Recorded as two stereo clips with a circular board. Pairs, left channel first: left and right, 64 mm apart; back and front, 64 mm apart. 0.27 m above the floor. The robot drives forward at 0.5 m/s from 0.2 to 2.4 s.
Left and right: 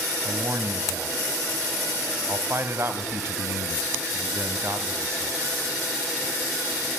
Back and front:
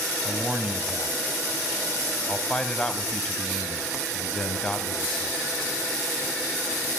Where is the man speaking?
65° right, 2 m; by 5.3 s 110° right, 2.0 m.